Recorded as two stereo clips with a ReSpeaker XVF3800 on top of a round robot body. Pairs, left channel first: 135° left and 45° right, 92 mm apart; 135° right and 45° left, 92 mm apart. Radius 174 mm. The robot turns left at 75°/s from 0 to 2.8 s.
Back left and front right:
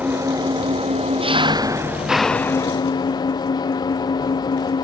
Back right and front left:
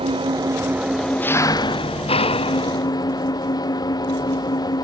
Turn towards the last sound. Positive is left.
turn(degrees=180)